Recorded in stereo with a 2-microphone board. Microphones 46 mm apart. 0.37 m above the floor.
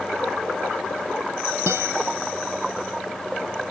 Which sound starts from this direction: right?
A guitar, at 1.7 s.